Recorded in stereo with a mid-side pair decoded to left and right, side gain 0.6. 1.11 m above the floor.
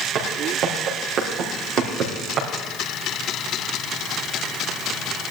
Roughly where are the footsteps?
Ahead right.